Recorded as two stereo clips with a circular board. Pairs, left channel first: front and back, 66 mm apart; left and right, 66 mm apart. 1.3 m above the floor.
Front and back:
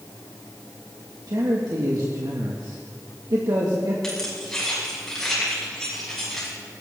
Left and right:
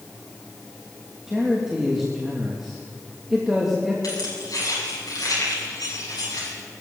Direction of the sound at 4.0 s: 85° left.